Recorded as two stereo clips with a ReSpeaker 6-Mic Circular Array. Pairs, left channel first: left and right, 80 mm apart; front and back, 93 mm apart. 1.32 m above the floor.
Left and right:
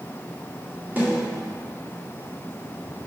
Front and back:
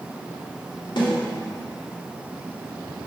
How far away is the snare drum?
About 2.5 m.